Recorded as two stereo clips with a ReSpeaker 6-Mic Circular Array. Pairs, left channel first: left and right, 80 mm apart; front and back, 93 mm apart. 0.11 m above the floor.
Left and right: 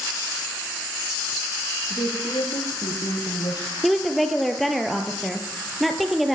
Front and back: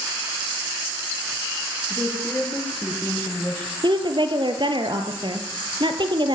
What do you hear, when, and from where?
1.9 s a woman speaking: 80° left, 8.5 m; by 3.7 s 70° left, 5.5 m
3.8 s a woman speaking: straight behind, 3 m